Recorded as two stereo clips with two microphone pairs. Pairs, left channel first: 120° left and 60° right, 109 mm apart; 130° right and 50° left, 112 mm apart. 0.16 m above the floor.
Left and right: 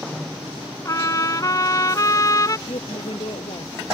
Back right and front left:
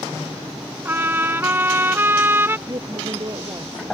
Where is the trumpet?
105° left.